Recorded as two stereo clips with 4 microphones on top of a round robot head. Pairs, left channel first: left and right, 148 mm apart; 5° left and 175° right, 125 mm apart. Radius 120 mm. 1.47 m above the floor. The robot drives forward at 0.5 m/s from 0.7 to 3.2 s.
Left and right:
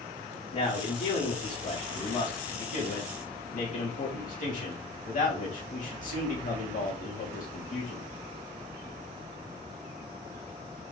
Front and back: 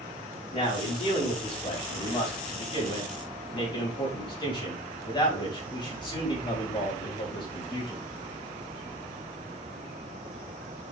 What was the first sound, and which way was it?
A man speaking, 45° left.